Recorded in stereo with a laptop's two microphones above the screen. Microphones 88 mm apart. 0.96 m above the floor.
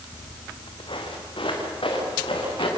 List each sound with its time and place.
0.1 s footsteps: 65° left (ahead or behind), 2.5 m; by 2.7 s 80° left, 6 m